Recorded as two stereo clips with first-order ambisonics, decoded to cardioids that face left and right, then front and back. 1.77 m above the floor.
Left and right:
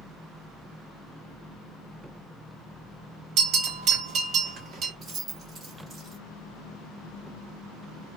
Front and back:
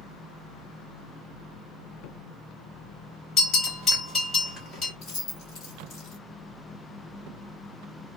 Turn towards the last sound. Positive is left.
turn(degrees=-20)